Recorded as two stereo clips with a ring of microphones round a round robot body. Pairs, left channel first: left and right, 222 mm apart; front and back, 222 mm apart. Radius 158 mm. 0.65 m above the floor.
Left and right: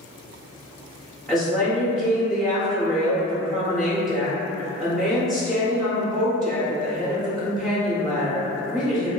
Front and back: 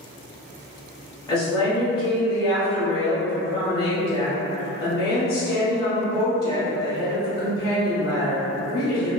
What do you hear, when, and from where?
1.3 s a woman speaking: straight ahead, 0.8 m